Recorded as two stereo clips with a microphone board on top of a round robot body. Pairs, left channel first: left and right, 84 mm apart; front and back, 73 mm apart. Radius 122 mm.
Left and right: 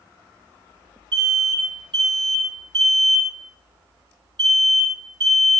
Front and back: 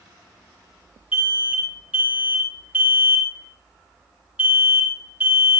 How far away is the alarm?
About 5.5 m.